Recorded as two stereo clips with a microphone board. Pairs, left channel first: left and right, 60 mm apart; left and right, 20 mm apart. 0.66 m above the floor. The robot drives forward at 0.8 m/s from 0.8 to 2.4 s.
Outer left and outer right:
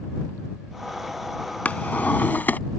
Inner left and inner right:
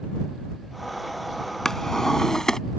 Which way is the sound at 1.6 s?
25° left (ahead or behind).